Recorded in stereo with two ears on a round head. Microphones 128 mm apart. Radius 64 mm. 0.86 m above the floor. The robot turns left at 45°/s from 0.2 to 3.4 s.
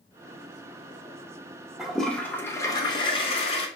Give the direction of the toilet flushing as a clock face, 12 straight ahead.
6 o'clock.